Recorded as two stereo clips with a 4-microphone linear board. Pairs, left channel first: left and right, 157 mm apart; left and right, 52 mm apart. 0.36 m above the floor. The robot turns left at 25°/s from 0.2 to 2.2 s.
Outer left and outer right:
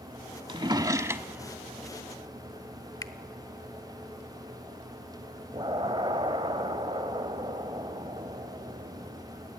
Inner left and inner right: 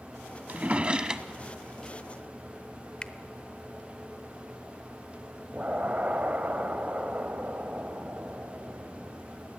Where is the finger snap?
25° left (ahead or behind), 1.0 m.